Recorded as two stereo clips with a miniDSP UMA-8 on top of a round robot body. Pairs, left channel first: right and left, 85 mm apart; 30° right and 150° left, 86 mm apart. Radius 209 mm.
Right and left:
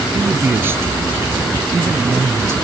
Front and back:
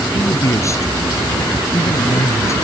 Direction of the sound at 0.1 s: 25° left.